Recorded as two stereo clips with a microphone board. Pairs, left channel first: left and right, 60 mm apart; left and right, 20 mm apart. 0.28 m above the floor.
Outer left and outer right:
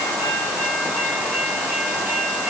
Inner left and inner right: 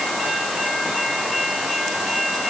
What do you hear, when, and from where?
Only background noise.